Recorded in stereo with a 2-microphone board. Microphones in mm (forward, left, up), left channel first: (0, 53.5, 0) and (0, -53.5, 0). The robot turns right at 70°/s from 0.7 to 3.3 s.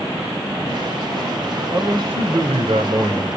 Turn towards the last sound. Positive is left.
turn(degrees=-35)